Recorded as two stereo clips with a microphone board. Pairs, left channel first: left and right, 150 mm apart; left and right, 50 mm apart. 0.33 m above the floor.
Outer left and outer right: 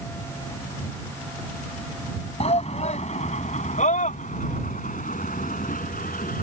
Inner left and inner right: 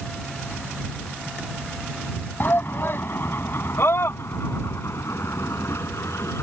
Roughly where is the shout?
Left.